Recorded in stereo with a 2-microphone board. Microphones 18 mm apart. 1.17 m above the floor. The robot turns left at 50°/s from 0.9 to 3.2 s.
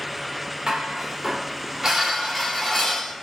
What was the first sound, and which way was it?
Dishes clattering, 110° right.